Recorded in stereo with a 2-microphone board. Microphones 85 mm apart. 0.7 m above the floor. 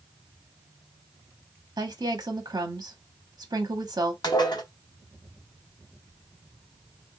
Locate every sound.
1.8 s a woman speaking: 50° right (ahead or behind), 1.2 m
4.2 s dishes clattering: 55° left (ahead or behind), 0.9 m